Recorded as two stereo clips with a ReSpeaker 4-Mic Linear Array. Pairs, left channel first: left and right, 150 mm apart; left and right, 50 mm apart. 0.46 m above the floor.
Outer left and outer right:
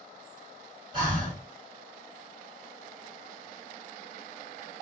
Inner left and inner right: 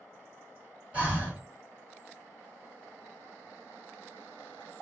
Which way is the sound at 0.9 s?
30° right (ahead or behind).